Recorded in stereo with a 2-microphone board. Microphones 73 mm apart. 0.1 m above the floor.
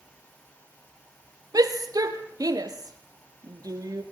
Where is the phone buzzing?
No phone buzzing in this recording.